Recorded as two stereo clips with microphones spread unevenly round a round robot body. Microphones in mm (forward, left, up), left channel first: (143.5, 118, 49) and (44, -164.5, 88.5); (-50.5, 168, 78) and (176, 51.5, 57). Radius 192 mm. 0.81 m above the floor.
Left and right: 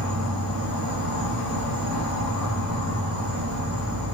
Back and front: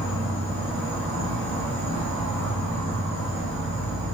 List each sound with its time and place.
0.0 s an insect: 70° right, 1.3 m